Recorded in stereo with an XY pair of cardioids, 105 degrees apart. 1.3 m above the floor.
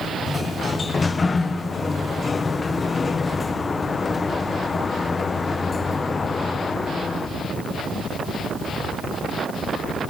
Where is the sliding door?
30° left, 0.7 m.